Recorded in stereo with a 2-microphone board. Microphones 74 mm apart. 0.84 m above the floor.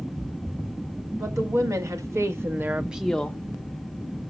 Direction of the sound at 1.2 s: 50° right (ahead or behind).